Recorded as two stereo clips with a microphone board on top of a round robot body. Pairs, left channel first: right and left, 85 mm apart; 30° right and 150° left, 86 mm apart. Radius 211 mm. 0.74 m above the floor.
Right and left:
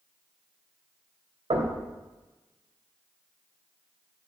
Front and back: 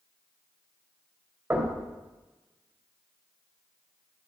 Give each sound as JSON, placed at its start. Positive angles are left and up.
{"t": 1.5, "sound": "knocking", "azimuth_deg": 80, "distance_m": 3.5}